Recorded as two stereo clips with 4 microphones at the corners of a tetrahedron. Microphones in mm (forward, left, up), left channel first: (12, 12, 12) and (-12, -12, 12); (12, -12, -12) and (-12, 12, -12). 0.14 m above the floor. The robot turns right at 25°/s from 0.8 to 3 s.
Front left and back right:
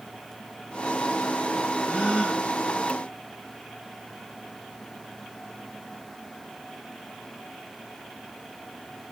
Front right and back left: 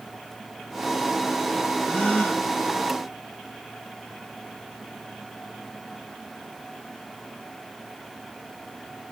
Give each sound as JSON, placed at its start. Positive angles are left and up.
{"t": 1.8, "sound": "a gasp", "azimuth_deg": 5, "distance_m": 3.5}